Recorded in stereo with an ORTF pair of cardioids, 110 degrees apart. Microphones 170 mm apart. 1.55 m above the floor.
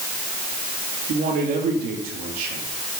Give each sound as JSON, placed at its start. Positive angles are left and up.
{"t": 1.1, "sound": "a man speaking", "azimuth_deg": -60, "distance_m": 3.5}